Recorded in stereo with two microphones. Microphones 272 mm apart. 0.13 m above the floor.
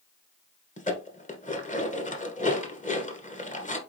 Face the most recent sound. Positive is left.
turn(degrees=25)  # may be behind; listen again after turning